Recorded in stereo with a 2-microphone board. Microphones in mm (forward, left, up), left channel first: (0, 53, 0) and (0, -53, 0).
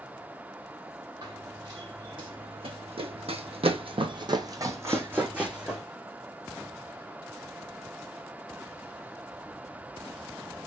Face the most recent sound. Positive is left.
turn(degrees=-10)  # may be behind; listen again after turning